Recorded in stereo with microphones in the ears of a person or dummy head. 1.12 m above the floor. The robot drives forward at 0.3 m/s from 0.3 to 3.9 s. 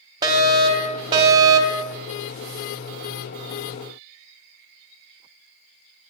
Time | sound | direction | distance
0.2 | a fire alarm | 15° right (ahead or behind) | 1.6 m